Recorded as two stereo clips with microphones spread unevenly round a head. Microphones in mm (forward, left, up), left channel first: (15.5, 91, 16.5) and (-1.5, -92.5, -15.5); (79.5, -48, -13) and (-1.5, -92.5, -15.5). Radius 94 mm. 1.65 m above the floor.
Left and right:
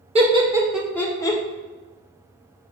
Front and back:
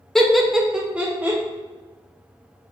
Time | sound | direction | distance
0.1 | laughter | 50° right | 0.6 m